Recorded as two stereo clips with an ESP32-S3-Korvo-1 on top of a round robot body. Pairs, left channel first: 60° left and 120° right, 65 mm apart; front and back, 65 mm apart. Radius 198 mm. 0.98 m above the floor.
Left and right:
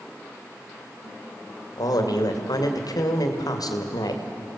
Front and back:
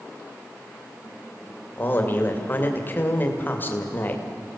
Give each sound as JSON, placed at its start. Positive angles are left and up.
{"t": 1.8, "sound": "a man speaking", "azimuth_deg": 60, "distance_m": 2.5}